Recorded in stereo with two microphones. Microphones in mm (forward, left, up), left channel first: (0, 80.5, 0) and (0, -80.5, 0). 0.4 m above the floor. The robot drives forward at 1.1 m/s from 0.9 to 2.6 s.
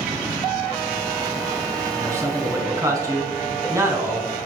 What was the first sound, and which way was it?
A man speaking, 15° right (ahead or behind).